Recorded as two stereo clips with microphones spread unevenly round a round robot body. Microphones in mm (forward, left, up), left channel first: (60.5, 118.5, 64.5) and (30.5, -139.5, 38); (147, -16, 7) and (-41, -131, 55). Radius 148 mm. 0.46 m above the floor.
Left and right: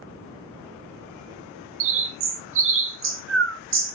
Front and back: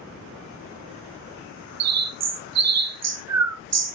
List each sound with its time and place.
1.8 s a bird: 140° right, 0.5 m